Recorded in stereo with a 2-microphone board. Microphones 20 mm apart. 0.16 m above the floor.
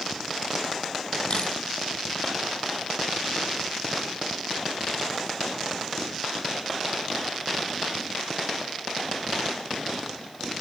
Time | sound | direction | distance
1.3 | a camera shutter | 45° left (ahead or behind) | 1.1 m